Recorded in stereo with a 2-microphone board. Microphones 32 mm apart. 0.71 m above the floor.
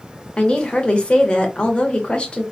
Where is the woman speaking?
35° left (ahead or behind), 0.9 m.